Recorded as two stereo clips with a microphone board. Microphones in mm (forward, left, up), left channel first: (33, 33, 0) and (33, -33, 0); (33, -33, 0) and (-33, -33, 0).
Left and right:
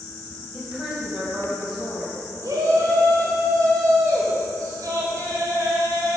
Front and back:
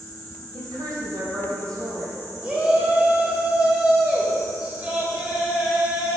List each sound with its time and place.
0.5 s a woman speaking: 170° right, 3 m
2.4 s a shout: 105° right, 2.5 m